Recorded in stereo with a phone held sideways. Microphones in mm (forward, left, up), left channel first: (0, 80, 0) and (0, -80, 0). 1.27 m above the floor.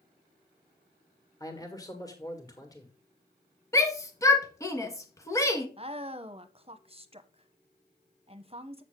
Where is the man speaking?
20° left (ahead or behind), 1.7 m.